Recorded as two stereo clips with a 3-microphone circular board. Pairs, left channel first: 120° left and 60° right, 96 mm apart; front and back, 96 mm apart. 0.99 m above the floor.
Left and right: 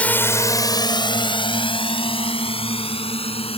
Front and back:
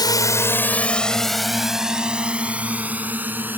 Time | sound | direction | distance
0.0 | a drone | 45° left | ?